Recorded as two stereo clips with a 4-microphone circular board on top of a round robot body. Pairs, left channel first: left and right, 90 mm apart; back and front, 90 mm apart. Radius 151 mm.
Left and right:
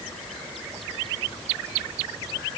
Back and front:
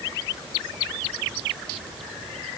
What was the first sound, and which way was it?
Only background noise.